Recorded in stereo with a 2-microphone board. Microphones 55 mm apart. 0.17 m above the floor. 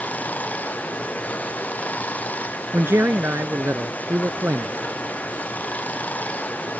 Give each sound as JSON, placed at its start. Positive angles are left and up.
{"t": 0.0, "sound": "running water", "side_deg": 25}
{"t": 2.7, "sound": "a man speaking", "side_deg": -50}